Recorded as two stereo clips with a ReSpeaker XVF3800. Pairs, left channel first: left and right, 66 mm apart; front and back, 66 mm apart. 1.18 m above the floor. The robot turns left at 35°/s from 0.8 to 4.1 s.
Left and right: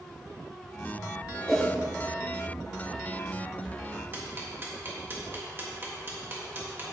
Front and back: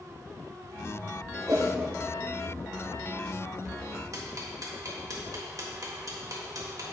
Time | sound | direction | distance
1.5 | a whoosh | straight behind | 1.7 m
4.1 | ticking | 145° right | 1.5 m